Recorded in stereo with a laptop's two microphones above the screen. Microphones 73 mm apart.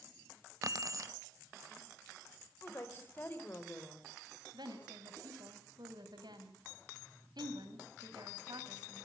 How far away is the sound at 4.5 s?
About 5 m.